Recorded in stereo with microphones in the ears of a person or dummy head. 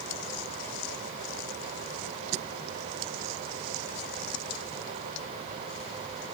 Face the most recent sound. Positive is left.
No sound to turn to.